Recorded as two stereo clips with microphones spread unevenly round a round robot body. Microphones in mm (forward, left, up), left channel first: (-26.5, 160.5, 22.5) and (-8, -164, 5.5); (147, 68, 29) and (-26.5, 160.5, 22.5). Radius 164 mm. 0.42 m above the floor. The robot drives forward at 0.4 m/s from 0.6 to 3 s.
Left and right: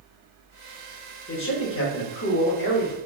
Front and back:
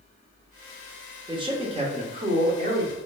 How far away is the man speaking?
About 1.0 m.